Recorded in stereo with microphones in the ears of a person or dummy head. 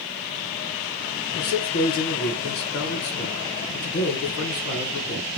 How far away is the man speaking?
About 1.3 m.